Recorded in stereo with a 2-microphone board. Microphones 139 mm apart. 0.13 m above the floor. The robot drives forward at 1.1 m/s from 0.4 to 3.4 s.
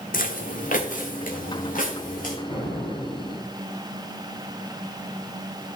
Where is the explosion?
55° left (ahead or behind), 3.5 m; by 3.5 s 45° left (ahead or behind), 4.5 m.